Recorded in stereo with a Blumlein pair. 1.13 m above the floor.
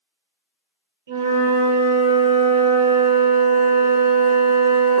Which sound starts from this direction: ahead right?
A flute, at 1.1 s.